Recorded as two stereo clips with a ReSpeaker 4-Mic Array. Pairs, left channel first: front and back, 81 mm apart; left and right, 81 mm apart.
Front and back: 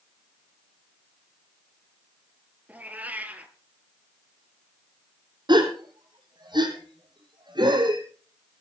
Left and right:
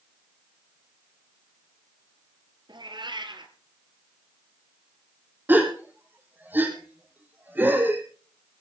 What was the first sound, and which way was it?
A cat meowing, 110° right.